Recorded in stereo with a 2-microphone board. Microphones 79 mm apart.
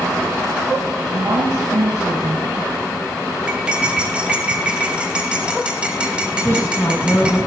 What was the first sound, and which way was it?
A woman speaking, 55° right (ahead or behind).